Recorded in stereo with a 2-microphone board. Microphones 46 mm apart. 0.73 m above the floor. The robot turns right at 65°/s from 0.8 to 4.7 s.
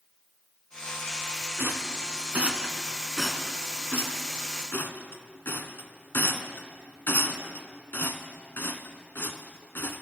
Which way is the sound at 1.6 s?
60° right (ahead or behind).